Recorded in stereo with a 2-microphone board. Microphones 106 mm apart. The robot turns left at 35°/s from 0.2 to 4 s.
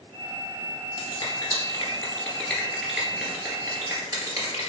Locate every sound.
1.0 s a finger snap: 45° left (ahead or behind), 1.9 m; by 4.7 s 30° right (ahead or behind), 1.9 m